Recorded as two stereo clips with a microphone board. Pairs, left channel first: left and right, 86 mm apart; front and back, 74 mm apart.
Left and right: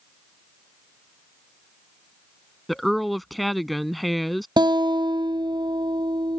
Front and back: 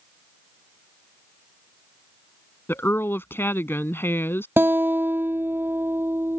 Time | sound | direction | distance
2.7 | a woman speaking | straight ahead | ?
4.6 | a guitar | 120° right | ?